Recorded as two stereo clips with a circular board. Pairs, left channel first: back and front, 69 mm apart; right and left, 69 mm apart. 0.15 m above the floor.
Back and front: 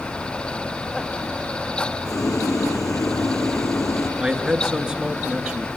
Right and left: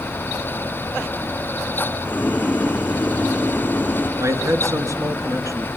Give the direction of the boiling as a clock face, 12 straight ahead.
5 o'clock.